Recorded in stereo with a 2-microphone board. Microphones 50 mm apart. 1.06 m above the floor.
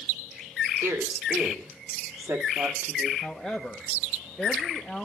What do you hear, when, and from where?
0.8 s a woman speaking: 75° right (ahead or behind), 2.5 m
3.2 s a woman speaking: centre (ahead or behind), 1.2 m